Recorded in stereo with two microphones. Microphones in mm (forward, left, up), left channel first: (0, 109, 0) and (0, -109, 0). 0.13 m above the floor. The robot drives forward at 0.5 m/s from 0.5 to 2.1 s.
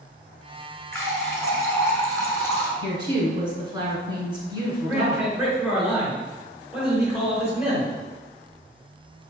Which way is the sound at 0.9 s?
15° left (ahead or behind).